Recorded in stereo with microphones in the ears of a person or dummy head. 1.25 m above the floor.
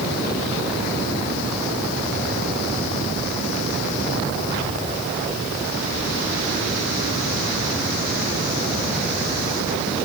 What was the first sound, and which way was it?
Only background noise.